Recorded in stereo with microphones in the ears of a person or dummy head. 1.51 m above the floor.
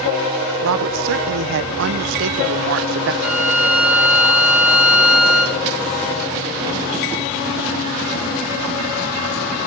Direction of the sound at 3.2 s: Centre (ahead or behind).